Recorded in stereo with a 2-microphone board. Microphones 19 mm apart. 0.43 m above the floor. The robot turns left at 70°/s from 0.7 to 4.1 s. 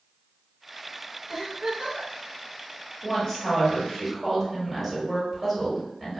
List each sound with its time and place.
1.3 s a giggle: 25° right, 1.9 m; by 2.1 s 80° right, 1.9 m
3.0 s a woman speaking: 90° left, 1.4 m; by 6.2 s 15° left, 1.4 m